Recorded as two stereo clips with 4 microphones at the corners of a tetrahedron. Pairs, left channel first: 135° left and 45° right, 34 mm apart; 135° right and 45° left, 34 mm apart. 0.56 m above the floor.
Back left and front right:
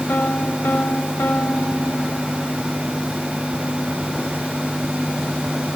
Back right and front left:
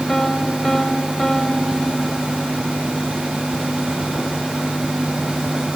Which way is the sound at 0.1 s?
140° left.